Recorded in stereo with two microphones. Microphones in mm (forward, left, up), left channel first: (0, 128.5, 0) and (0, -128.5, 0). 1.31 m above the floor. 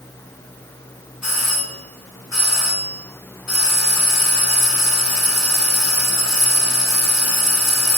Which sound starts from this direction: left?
A doorbell, at 1.2 s.